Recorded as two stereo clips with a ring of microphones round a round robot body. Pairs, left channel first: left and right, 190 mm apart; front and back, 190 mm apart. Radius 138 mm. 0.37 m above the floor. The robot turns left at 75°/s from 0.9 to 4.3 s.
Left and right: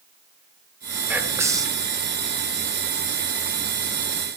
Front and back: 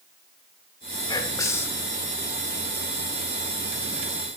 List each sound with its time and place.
1.1 s whispering: 20° right, 1.0 m; by 1.9 s 80° right, 1.0 m